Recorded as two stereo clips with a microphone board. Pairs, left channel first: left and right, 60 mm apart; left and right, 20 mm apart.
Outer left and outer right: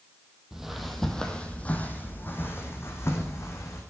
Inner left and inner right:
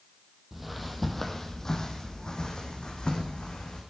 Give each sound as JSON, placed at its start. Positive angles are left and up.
{"t": 0.5, "sound": "footsteps", "side_deg": -10, "distance_m": 1.8}